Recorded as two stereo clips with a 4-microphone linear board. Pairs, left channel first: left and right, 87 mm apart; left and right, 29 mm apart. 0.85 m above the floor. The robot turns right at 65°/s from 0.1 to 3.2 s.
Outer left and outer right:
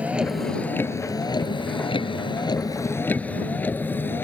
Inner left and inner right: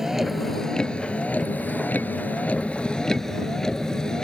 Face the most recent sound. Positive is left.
turn(degrees=25)  # may be behind; listen again after turning